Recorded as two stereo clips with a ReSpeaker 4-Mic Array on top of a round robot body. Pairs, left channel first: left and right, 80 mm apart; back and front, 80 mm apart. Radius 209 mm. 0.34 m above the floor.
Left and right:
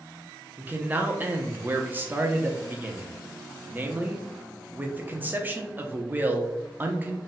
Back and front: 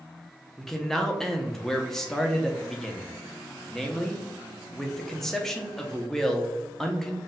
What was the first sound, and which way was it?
A man speaking, 105° right.